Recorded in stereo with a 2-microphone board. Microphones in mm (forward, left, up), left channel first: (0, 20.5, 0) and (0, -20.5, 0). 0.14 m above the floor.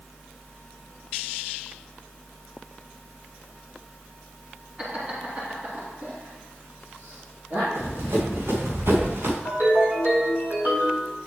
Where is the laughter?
25° right (ahead or behind), 1.8 m; by 7.7 s 65° right (ahead or behind), 4 m.